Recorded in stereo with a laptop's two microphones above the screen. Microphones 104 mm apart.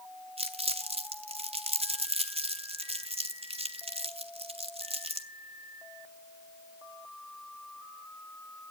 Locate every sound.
0.4 s crumpling: 70° right (ahead or behind), 1.0 m